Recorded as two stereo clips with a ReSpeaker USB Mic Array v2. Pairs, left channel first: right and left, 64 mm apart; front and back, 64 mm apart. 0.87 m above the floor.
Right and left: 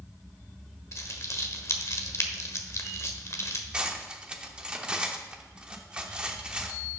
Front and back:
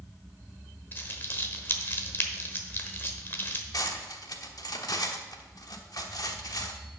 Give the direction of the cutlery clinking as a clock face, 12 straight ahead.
11 o'clock.